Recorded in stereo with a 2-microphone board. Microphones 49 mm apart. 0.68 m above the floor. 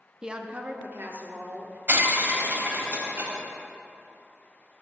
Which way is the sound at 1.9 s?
40° right (ahead or behind).